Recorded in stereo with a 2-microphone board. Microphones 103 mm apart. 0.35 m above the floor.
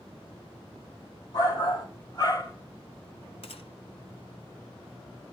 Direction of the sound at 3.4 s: 70° left (ahead or behind).